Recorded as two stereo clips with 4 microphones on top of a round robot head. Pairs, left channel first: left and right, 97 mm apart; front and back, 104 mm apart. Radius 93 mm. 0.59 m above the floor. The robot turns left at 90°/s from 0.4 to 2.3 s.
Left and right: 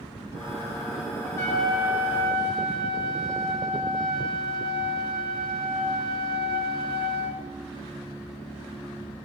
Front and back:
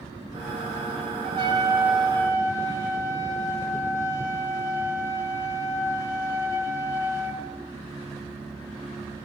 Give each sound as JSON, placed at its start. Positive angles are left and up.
{"t": 1.2, "sound": "a trumpet", "azimuth_deg": 160, "distance_m": 1.1}